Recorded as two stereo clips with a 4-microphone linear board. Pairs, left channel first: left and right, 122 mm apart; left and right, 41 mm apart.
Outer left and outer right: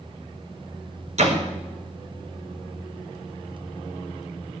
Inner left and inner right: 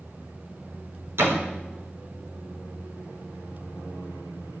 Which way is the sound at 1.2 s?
70° right (ahead or behind).